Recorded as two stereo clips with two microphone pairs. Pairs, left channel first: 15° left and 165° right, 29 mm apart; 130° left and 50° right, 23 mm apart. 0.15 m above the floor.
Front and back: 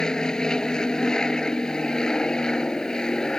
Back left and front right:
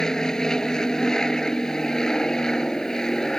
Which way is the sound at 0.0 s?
75° left.